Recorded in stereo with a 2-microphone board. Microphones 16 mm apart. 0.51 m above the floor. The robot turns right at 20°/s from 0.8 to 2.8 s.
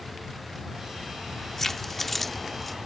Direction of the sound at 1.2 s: 145° left.